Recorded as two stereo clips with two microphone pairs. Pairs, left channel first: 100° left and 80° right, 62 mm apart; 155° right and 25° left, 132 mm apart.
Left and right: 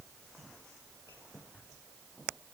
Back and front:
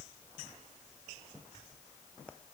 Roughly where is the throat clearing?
I don't hear throat clearing.